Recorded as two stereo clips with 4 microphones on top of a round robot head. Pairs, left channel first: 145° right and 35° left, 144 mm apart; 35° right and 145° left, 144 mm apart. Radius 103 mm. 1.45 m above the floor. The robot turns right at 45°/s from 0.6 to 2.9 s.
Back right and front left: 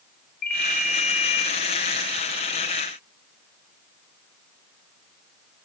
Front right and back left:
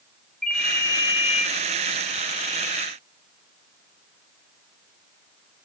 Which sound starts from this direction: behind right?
A ringtone, at 0.4 s.